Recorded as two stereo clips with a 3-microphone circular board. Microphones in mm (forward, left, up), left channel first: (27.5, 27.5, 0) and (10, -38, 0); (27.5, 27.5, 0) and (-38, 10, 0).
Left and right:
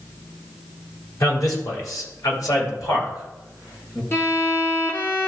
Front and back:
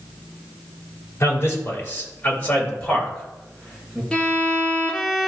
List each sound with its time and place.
1.2 s a man speaking: 60° left, 3 m; by 4.0 s 105° left, 3 m
4.1 s a violin: 85° left, 1.3 m